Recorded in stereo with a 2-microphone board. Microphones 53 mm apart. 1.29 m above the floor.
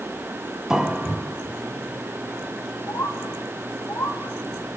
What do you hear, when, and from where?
0.7 s a piano: 10° right (ahead or behind), 1.3 m
2.9 s a bird: 70° left (ahead or behind), 2.5 m